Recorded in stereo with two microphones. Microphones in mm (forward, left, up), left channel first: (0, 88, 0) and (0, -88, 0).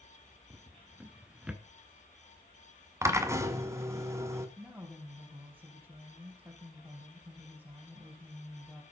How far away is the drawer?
About 1.1 m.